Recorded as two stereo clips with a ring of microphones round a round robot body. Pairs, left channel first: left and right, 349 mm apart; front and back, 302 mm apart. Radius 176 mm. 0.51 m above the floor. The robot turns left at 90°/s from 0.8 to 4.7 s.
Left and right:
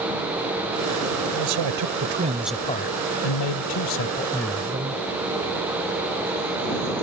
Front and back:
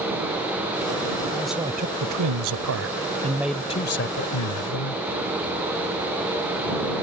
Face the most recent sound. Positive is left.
turn(degrees=-20)